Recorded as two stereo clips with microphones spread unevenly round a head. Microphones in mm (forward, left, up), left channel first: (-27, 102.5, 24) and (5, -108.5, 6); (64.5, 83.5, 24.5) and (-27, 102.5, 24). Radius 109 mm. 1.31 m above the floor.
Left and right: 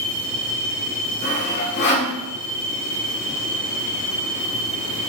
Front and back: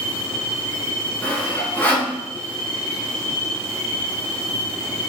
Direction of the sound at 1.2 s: 55° left.